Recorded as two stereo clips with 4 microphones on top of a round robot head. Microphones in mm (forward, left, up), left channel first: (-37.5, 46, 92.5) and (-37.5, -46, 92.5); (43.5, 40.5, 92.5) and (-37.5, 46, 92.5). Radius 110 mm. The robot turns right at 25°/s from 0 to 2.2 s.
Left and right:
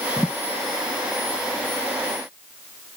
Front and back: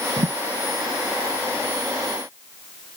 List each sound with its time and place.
0.2 s a thud: 175° left; by 0.3 s straight behind